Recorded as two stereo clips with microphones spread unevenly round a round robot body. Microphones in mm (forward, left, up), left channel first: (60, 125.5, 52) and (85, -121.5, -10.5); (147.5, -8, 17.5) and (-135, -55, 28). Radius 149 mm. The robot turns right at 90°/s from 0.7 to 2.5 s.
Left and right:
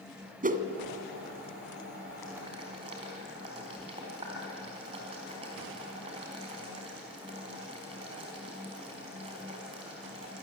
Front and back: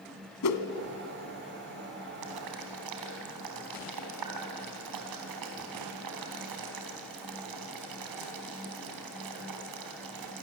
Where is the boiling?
175° left, 4 m; by 10.4 s 160° right, 4 m.